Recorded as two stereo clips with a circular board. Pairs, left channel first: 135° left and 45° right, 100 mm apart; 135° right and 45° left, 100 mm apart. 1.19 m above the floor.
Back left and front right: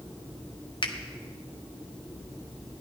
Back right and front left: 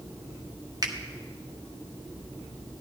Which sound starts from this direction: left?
A finger snap, at 0.8 s.